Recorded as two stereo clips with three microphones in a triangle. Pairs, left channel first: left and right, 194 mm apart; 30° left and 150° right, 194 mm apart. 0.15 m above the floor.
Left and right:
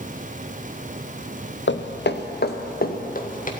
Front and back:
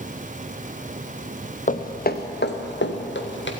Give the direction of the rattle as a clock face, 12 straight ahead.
No rattle in this recording.